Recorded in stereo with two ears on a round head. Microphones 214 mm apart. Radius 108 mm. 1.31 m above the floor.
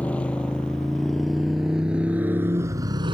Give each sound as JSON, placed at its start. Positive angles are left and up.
{"t": 0.0, "sound": "a motorcycle", "side_deg": 5}